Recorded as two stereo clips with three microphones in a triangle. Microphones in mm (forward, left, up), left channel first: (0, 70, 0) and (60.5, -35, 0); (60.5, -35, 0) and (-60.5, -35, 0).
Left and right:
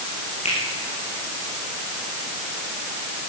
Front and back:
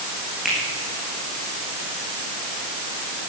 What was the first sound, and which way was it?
A finger snap, 90° left.